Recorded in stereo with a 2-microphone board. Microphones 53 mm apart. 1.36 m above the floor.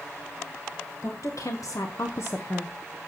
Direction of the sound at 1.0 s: 65° left (ahead or behind).